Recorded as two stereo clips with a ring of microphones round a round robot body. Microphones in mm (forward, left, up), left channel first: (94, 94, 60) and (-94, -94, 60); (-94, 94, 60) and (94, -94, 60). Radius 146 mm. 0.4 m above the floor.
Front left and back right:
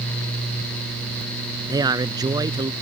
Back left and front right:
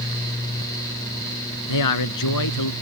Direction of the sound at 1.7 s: 150° left.